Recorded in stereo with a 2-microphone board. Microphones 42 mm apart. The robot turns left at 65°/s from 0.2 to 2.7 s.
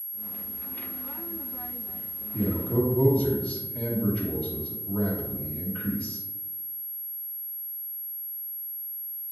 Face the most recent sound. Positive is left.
turn(degrees=25)  # may be behind; listen again after turning